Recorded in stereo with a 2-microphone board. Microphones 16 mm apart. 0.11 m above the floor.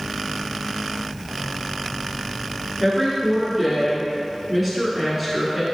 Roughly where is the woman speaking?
Centre.